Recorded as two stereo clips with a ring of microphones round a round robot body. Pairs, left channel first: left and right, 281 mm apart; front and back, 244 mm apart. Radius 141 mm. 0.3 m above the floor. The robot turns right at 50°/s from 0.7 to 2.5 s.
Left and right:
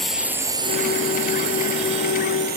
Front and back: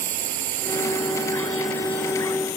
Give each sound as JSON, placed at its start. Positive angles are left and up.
{"t": 0.0, "sound": "a drone", "azimuth_deg": 180}